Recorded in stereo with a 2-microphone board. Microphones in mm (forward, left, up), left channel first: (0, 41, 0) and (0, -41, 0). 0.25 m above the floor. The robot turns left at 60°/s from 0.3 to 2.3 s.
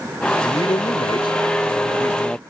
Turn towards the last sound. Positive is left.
turn(degrees=15)